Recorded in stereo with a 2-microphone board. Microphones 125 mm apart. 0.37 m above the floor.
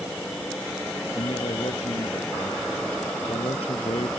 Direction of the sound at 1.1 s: 50° left (ahead or behind).